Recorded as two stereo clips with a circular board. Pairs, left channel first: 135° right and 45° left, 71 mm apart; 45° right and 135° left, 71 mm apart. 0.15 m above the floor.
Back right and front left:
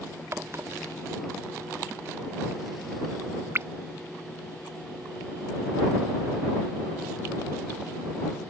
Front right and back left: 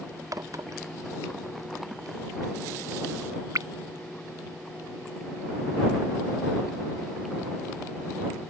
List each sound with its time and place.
0.3 s a crack: 95° left